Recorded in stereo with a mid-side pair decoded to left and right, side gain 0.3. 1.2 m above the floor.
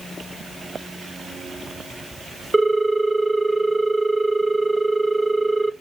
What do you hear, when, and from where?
2.5 s a ringtone: 15° right, 1.0 m